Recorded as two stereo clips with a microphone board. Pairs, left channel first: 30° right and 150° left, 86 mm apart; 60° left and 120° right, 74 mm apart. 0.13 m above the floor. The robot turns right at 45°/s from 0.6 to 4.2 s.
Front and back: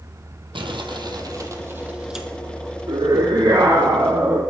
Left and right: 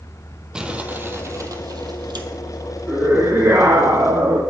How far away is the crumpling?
About 1.6 m.